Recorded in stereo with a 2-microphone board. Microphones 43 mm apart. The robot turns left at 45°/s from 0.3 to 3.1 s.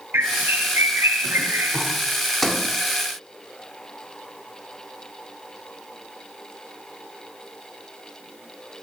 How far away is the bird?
About 6 m.